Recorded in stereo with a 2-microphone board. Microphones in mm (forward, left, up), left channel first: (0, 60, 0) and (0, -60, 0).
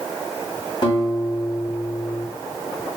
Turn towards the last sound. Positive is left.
turn(degrees=40)  # may be behind; listen again after turning